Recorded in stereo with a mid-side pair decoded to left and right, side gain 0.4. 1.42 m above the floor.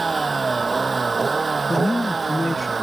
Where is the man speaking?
15° left.